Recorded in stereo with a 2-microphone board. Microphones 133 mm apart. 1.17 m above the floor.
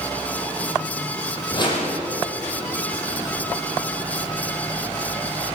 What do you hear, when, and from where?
1.5 s a whoosh: 35° left (ahead or behind), 6.5 m